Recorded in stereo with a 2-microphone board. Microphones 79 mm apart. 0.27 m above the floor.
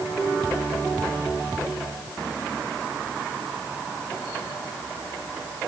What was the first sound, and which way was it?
Only background noise.